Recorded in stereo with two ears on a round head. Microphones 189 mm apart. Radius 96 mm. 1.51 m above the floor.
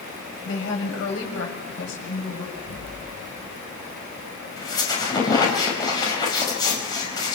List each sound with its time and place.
0.5 s a woman speaking: 75° left (ahead or behind), 8 m
2.5 s an explosion: 75° left (ahead or behind), 4 m
4.6 s a squeak: 20° left (ahead or behind), 5 m